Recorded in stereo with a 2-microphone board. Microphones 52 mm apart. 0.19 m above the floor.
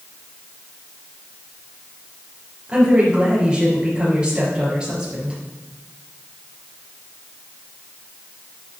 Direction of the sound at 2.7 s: 20° right (ahead or behind).